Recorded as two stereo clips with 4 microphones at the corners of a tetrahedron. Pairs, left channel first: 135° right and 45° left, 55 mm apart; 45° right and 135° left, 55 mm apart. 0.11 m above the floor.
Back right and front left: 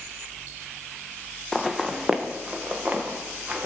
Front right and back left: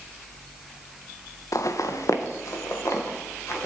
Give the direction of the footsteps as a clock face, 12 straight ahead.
2 o'clock.